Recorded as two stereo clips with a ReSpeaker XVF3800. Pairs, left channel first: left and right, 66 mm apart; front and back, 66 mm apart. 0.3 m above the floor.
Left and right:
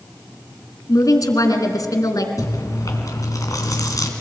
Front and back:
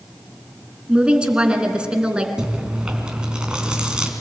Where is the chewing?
105° left, 3 m.